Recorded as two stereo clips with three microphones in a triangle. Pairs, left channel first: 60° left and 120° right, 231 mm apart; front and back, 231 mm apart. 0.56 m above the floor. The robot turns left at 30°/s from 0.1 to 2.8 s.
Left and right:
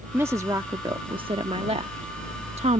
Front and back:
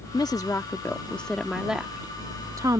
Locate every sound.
0.1 s a woman speaking: 50° right; by 2.8 s 130° right